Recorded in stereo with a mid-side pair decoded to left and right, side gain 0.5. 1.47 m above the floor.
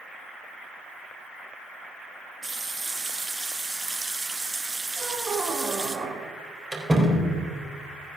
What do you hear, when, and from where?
2.4 s a running tap: 15° right, 1.6 m
5.0 s a squeak: 30° right, 2.5 m
6.7 s a door slam: 15° right, 4 m